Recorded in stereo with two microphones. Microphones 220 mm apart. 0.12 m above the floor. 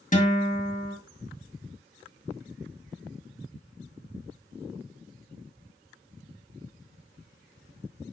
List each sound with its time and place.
0.1 s a guitar: 35° left (ahead or behind), 2.5 m